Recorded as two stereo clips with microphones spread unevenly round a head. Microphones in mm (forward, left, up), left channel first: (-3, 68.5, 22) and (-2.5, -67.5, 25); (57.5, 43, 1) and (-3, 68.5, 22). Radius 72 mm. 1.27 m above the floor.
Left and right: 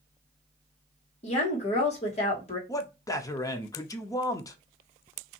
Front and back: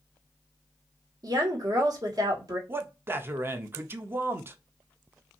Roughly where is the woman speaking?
Behind left.